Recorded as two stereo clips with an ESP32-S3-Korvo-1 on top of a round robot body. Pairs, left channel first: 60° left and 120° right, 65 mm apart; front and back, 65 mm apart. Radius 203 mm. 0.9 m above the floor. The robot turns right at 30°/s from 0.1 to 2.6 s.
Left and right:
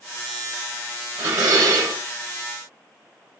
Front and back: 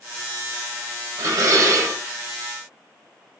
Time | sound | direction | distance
1.2 | dishes clattering | 160° right | 3 m